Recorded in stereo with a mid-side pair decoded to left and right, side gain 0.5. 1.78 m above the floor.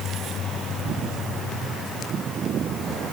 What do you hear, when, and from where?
Only background noise.